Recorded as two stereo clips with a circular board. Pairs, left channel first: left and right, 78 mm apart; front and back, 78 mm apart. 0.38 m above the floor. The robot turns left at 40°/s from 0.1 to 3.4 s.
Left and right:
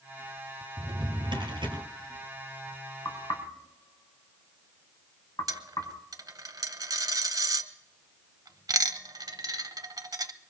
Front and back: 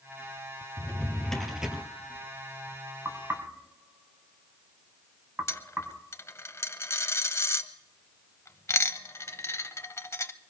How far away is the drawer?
About 1.8 m.